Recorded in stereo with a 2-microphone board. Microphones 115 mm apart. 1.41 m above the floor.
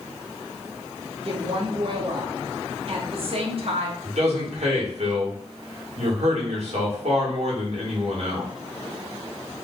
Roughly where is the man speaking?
Right.